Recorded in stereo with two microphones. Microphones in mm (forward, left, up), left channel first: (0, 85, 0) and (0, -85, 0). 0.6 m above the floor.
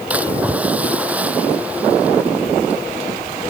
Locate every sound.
0.1 s a splash: 10° right (ahead or behind)